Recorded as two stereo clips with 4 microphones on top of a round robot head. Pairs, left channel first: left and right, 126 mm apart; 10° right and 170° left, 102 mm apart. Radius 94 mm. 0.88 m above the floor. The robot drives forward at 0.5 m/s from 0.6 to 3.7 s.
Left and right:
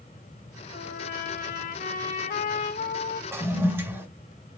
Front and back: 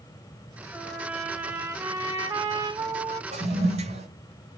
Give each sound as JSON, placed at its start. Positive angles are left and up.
{"t": 0.7, "sound": "a trumpet", "azimuth_deg": 80, "distance_m": 1.6}
{"t": 3.3, "sound": "a toilet flushing", "azimuth_deg": -160, "distance_m": 3.0}